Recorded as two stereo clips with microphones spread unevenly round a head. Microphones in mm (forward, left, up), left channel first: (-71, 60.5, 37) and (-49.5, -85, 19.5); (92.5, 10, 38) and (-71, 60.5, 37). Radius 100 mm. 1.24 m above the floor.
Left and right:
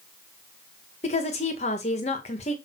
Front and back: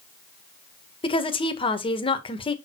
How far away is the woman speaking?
About 1.6 m.